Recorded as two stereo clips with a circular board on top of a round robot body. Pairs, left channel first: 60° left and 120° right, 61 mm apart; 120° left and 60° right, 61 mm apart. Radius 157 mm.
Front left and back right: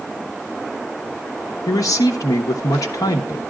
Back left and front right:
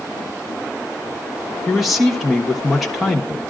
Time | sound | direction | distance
1.7 | a man speaking | 30° left | 1.1 m